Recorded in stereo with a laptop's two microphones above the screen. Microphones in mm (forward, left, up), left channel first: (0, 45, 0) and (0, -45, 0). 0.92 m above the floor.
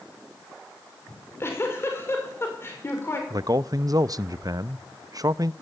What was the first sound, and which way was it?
A giggle, 30° left (ahead or behind).